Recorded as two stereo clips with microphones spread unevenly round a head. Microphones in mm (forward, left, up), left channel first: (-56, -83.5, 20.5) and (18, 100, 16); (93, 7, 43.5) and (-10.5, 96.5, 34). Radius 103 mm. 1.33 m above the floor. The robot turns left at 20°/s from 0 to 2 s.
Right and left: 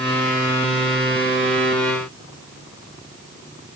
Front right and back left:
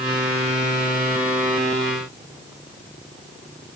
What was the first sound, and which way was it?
Only background noise.